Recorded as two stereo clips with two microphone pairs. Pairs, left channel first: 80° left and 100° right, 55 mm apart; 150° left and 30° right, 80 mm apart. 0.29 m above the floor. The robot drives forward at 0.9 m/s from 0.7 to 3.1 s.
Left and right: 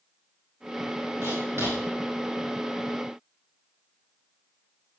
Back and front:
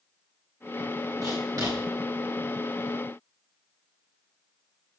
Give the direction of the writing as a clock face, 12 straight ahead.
2 o'clock.